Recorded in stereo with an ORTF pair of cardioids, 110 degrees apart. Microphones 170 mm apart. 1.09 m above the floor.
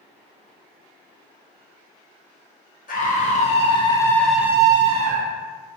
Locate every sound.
2.9 s a scream: 55° left, 1.0 m; by 5.4 s 55° right, 0.7 m